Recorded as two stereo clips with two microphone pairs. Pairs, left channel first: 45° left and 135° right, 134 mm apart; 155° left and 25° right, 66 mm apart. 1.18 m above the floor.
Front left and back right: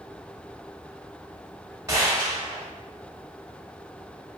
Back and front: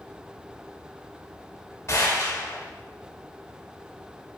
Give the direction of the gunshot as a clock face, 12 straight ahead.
6 o'clock.